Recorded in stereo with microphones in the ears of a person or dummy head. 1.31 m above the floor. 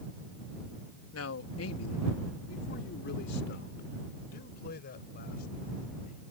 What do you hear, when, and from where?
1.1 s a man speaking: 80° left; by 6.2 s 45° left (ahead or behind)